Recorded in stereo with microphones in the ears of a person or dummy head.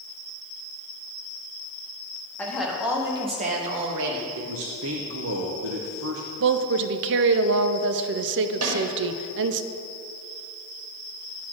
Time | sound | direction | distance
2.4 | a woman speaking | 5° left (ahead or behind) | 1.7 m
4.4 | a man speaking | 70° right (ahead or behind) | 0.8 m
6.4 | a woman speaking | 65° right (ahead or behind) | 0.5 m
8.6 | a snare drum | 80° right | 2 m